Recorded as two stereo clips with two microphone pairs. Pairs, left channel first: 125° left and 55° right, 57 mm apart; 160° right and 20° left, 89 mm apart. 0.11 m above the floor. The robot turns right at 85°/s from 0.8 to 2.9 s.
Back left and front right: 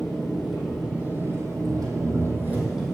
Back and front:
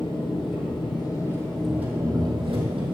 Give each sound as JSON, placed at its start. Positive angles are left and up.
{"t": 0.0, "sound": "an engine running", "azimuth_deg": -140, "distance_m": 2.5}